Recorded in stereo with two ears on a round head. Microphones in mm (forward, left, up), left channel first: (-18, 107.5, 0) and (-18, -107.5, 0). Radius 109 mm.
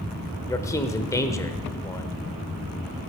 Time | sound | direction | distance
0.5 | a man speaking | 15° left (ahead or behind) | 1.1 m